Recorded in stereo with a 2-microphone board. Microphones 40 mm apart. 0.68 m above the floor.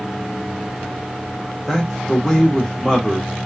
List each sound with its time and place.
1.7 s a man speaking: centre (ahead or behind), 1.3 m